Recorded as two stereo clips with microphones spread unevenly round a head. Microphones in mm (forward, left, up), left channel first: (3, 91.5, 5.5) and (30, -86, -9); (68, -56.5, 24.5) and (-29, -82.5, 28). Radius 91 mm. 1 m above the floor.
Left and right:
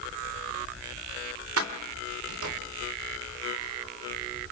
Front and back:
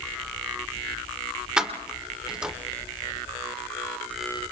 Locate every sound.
1.6 s keys jangling: 85° right, 2.5 m